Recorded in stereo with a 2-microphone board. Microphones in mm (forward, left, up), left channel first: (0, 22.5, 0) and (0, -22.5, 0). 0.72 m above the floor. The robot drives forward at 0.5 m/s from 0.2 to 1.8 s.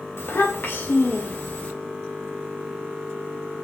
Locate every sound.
0.2 s a child speaking: 60° left (ahead or behind), 1.0 m; by 1.7 s 40° left (ahead or behind), 1.3 m